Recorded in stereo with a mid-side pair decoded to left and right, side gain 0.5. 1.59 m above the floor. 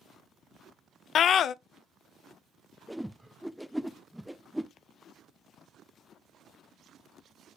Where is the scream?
60° left, 0.5 m.